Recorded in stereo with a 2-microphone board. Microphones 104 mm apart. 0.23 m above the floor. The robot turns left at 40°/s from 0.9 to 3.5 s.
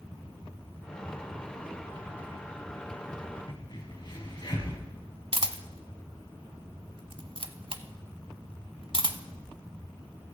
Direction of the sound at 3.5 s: 50° left (ahead or behind).